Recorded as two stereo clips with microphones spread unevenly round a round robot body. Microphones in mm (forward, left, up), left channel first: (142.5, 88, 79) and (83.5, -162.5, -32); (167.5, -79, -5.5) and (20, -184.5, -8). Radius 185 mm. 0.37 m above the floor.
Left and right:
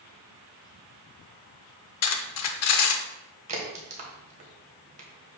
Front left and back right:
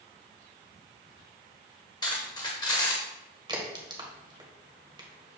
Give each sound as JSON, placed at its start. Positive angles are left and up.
{"t": 2.0, "sound": "cutlery clinking", "azimuth_deg": 90, "distance_m": 0.6}
{"t": 3.5, "sound": "a crack", "azimuth_deg": -85, "distance_m": 1.8}